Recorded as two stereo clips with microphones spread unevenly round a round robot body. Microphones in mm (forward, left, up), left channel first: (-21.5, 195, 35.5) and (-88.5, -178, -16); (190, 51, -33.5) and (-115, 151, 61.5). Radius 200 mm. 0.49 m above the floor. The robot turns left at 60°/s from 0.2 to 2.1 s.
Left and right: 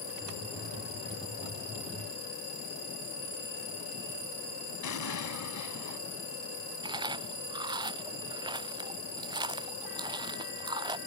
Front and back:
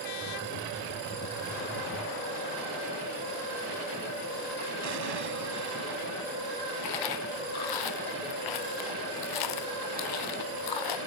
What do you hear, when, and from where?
4.8 s an explosion: 125° left
6.8 s chewing: 20° right